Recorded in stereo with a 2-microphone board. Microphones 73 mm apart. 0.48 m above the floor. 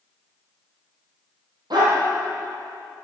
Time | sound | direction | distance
1.7 | a dog barking | 70° right (ahead or behind) | 4 m